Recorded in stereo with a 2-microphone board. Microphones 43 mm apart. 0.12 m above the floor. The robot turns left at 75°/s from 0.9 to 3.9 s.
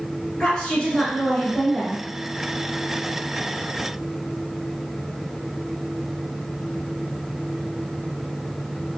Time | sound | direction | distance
0.4 | a woman speaking | 20° left (ahead or behind) | 1.1 m